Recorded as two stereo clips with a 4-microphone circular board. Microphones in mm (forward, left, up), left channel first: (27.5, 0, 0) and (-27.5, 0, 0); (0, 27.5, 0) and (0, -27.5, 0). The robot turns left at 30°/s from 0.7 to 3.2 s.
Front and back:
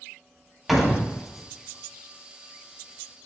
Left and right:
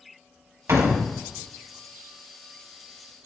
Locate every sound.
0.7 s a door slam: 95° right, 1.4 m; by 1.1 s 105° right, 1.4 m